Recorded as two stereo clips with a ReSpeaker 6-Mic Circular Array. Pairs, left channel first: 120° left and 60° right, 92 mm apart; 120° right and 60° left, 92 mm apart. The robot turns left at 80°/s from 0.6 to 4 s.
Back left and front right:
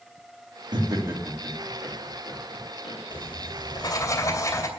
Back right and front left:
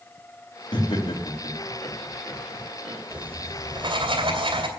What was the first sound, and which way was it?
Laughter, 95° right.